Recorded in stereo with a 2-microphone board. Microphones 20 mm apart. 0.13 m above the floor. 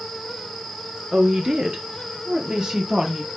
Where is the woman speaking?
50° right (ahead or behind), 2 m; by 3.3 s 30° right (ahead or behind), 3.5 m.